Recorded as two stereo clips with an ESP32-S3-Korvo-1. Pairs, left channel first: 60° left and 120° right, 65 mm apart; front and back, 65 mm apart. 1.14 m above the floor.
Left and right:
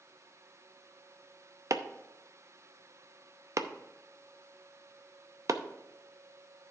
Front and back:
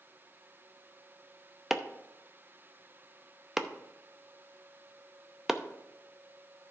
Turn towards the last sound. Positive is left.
turn(degrees=-95)